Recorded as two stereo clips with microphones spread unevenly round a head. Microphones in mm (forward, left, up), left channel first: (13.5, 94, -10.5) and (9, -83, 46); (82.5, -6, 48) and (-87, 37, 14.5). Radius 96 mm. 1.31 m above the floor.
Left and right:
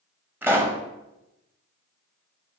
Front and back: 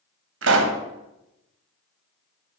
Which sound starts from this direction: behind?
A pop, at 0.4 s.